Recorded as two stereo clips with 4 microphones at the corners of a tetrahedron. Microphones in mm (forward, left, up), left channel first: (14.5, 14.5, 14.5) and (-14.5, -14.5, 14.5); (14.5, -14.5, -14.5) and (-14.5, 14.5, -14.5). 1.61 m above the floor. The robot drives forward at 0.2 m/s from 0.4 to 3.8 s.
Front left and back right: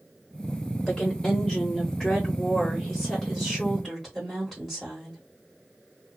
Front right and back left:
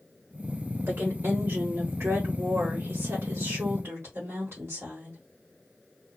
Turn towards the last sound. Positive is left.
turn(degrees=135)